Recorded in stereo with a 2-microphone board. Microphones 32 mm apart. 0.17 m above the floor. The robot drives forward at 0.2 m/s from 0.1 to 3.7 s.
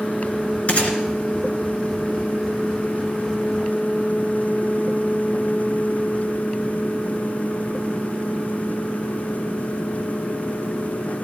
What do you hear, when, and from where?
0.7 s a gunshot: 45° left (ahead or behind), 2.5 m; by 1.0 s 40° left (ahead or behind), 2.5 m